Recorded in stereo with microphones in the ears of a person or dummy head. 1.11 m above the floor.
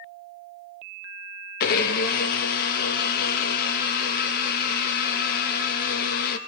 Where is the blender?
50° left (ahead or behind), 0.8 m.